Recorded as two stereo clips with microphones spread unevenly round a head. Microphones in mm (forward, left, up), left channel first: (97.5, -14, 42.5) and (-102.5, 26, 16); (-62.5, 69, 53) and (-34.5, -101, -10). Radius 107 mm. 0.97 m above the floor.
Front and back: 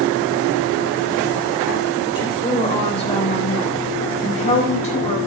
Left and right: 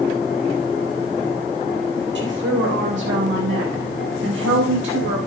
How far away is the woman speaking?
About 3 m.